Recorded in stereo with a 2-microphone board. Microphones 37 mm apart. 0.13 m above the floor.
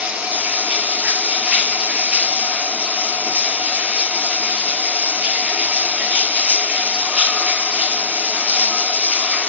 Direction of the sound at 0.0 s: 40° right (ahead or behind).